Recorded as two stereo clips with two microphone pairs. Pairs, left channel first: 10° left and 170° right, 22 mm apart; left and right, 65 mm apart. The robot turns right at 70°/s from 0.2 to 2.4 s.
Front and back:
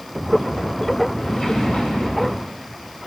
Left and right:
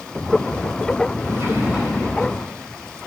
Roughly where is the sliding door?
Ahead right.